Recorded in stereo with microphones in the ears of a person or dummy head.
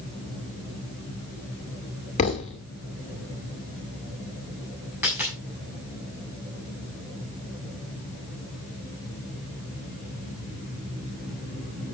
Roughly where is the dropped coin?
Centre.